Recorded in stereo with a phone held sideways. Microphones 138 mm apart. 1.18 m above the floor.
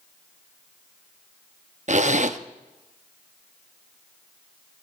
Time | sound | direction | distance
1.9 | a zipper | 55° right (ahead or behind) | 0.8 m